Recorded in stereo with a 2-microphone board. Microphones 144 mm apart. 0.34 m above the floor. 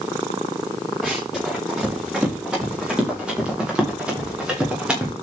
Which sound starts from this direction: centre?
Running footsteps, at 1.0 s.